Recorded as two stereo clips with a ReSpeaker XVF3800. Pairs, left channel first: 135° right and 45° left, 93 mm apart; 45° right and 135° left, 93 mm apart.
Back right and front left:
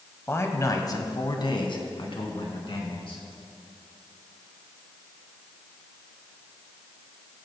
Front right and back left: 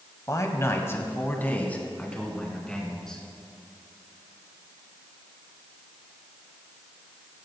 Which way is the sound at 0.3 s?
80° right.